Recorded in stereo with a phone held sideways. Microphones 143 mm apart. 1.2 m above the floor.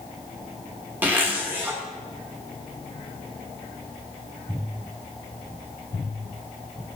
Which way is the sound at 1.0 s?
15° right (ahead or behind).